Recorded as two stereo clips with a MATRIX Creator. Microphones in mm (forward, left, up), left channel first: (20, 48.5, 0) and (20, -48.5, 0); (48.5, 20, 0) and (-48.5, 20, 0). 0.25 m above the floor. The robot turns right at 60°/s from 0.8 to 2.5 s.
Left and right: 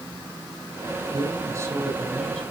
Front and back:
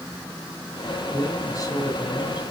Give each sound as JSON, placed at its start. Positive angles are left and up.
{"t": 1.1, "sound": "a man speaking", "azimuth_deg": -70, "distance_m": 2.5}